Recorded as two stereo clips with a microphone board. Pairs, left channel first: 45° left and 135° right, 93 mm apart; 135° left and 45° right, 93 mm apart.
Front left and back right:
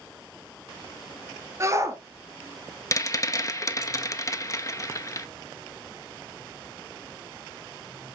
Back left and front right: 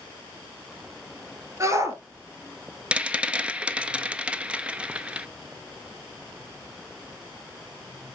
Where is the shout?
90° right, 1.8 m.